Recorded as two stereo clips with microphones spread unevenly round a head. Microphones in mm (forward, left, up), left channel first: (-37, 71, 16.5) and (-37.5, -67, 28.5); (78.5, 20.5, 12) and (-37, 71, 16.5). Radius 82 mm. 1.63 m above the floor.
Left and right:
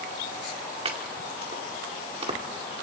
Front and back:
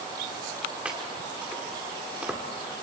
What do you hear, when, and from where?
0.8 s chopping: 125° right, 1.9 m